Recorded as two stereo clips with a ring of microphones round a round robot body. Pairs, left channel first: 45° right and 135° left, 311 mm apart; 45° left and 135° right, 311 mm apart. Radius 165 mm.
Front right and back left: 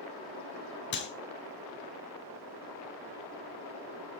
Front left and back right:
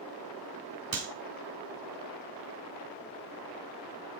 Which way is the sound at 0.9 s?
100° right.